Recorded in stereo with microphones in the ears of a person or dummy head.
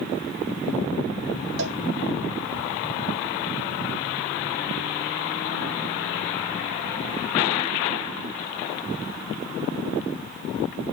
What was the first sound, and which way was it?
A cowbell, 65° right (ahead or behind).